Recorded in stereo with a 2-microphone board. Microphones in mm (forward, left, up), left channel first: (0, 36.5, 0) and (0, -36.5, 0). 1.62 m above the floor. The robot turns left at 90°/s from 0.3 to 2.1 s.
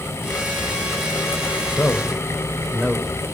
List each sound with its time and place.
1.7 s a man speaking: 40° left (ahead or behind), 1.3 m; by 3.4 s 5° left (ahead or behind), 1.3 m